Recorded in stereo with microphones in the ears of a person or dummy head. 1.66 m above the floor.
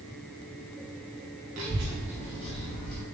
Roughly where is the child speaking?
Right.